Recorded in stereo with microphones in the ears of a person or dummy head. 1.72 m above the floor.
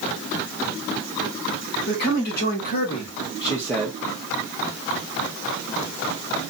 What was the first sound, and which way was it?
A man speaking, 65° left (ahead or behind).